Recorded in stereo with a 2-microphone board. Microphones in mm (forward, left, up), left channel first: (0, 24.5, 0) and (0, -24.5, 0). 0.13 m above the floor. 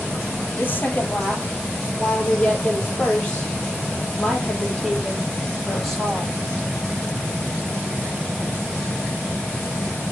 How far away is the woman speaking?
About 4 m.